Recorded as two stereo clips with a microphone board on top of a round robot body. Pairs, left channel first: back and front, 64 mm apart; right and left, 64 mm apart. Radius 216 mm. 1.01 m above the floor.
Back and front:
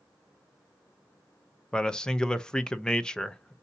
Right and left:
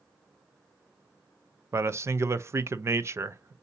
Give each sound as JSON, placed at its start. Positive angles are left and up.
{"t": 1.7, "sound": "a man speaking", "azimuth_deg": 105, "distance_m": 0.7}